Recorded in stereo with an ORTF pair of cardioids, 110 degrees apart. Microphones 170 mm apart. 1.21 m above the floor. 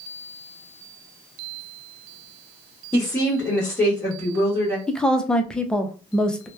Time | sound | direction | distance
2.9 | a woman speaking | 10° left | 1.2 m
4.9 | a woman speaking | 5° left | 0.5 m